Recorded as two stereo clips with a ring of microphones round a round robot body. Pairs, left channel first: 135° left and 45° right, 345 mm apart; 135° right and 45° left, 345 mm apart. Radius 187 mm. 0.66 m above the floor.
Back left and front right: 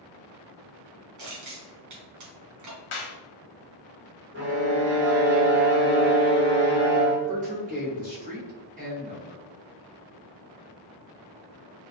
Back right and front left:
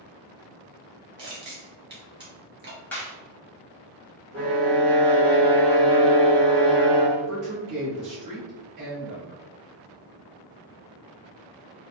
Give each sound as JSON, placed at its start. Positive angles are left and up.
{"t": 1.2, "sound": "crushing", "azimuth_deg": -15, "distance_m": 1.9}
{"t": 2.9, "sound": "a clap", "azimuth_deg": 140, "distance_m": 1.1}
{"t": 4.3, "sound": "a violin", "azimuth_deg": -50, "distance_m": 1.3}
{"t": 7.3, "sound": "a man speaking", "azimuth_deg": 20, "distance_m": 1.9}